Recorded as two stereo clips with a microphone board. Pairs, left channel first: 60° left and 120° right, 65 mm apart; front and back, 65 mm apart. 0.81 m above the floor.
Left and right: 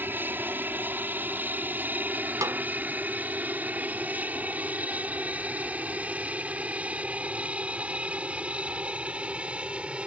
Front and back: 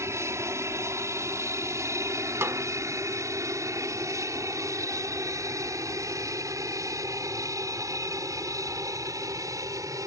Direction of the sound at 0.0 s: 165° right.